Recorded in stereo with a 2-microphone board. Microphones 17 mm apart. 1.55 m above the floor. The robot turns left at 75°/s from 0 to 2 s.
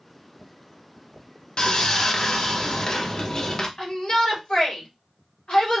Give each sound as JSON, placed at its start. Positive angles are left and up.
{"t": 1.6, "sound": "sawing", "azimuth_deg": 65, "distance_m": 0.7}
{"t": 3.8, "sound": "a shout", "side_deg": 55, "distance_m": 1.7}